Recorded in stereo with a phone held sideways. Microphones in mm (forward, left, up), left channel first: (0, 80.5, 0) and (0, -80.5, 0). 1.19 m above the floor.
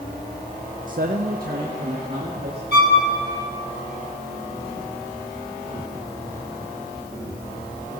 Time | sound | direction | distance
0.9 | a man speaking | 55° right (ahead or behind) | 0.5 m
2.7 | a violin | 85° left | 2 m